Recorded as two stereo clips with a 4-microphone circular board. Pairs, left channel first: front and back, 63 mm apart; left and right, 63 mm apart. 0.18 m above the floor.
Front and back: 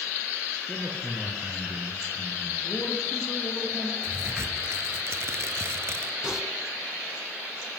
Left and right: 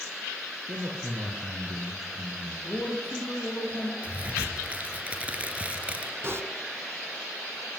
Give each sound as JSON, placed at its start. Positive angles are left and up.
{"t": 0.7, "sound": "a man speaking", "azimuth_deg": -90, "distance_m": 3.5}
{"t": 2.6, "sound": "a man speaking", "azimuth_deg": 30, "distance_m": 7.5}
{"t": 4.0, "sound": "a crack", "azimuth_deg": -155, "distance_m": 2.5}
{"t": 6.2, "sound": "typing on a keyboard", "azimuth_deg": -105, "distance_m": 1.4}